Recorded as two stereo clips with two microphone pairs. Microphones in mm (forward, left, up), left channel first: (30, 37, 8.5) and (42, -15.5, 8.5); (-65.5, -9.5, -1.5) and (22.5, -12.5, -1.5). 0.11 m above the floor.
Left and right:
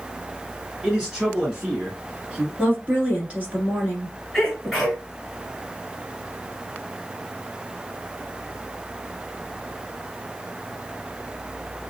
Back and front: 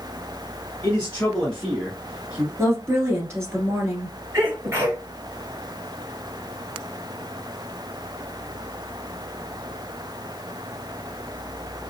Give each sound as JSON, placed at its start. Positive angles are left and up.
{"t": 0.8, "sound": "a man speaking", "azimuth_deg": -155, "distance_m": 1.4}
{"t": 2.6, "sound": "a woman speaking", "azimuth_deg": -40, "distance_m": 1.7}
{"t": 4.3, "sound": "a sneeze", "azimuth_deg": 15, "distance_m": 1.8}